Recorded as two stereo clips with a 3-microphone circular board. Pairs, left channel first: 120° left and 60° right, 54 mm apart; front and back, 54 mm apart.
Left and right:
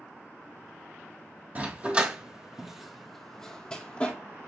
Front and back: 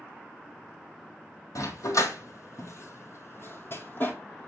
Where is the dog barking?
Straight ahead, 1.7 m; by 4.1 s 55° left, 1.6 m.